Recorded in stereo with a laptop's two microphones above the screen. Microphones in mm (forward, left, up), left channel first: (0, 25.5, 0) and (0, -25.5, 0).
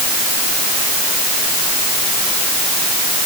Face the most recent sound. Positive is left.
No sound to turn to.